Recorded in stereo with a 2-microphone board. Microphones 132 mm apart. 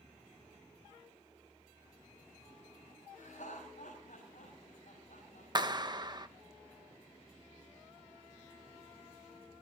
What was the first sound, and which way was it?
Laughter, 75° left (ahead or behind).